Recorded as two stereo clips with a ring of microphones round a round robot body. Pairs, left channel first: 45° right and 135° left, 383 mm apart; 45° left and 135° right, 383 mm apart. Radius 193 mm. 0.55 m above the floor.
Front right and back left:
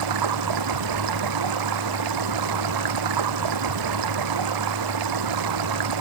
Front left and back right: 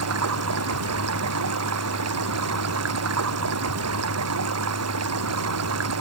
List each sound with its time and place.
0.0 s running water: 170° left